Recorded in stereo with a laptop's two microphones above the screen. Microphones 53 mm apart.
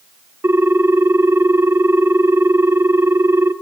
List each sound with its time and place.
0.4 s a ringtone: 50° right (ahead or behind), 1.1 m